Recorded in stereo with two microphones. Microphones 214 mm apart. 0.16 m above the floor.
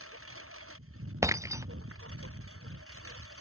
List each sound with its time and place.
0.0 s a lawn mower: 85° right
1.2 s breaking glass: 15° right (ahead or behind)